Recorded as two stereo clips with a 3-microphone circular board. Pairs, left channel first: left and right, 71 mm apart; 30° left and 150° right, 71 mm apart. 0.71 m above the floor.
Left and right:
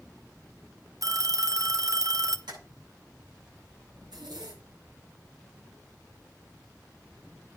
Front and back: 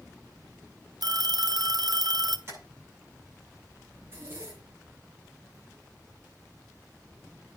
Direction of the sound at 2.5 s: 100° right.